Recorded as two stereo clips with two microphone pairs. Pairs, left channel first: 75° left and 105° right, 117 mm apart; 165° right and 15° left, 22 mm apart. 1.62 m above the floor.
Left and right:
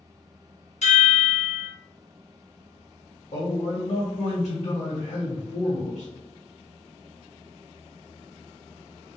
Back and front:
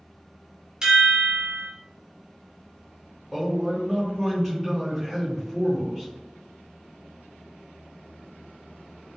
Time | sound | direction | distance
0.8 | a chime | 60° left | 1.1 m
3.3 | a man speaking | 85° left | 1.1 m